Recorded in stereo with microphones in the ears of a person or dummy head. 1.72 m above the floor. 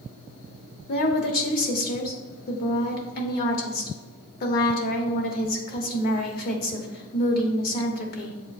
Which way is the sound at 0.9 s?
50° left (ahead or behind).